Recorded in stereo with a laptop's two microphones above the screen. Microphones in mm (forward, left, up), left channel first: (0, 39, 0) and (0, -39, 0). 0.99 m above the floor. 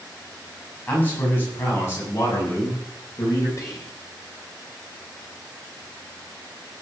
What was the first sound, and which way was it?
A man speaking, 25° left (ahead or behind).